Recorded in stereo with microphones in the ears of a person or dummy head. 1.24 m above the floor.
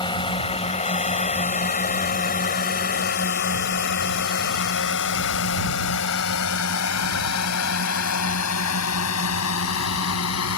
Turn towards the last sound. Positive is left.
turn(degrees=80)